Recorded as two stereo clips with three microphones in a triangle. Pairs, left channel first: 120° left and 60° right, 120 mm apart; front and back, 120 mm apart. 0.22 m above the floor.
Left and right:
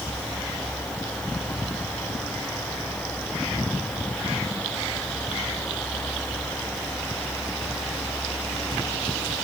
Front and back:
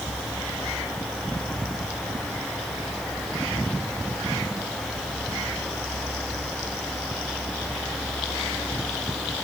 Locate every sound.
Only background noise.